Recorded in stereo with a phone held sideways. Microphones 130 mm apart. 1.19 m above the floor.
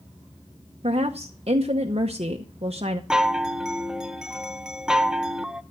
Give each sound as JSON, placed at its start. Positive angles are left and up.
{"t": 0.8, "sound": "a woman speaking", "side_deg": -50, "distance_m": 0.8}
{"t": 3.1, "sound": "a chime", "side_deg": -5, "distance_m": 0.6}